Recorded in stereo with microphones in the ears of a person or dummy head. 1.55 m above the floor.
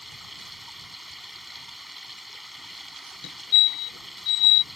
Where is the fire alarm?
60° left (ahead or behind).